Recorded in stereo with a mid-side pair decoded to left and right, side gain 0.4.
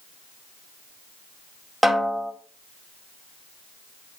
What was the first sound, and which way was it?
A snare drum, 10° right.